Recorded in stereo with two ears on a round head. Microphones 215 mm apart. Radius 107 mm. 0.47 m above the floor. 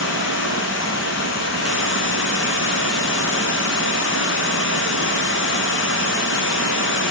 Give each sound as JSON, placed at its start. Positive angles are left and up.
{"t": 0.0, "sound": "running water", "side_deg": 55, "distance_m": 1.1}